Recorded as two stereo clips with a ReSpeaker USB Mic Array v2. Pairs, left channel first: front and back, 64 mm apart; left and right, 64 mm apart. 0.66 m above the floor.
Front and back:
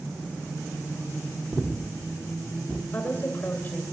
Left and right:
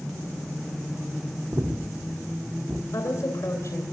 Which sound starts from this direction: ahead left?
A woman speaking, at 2.9 s.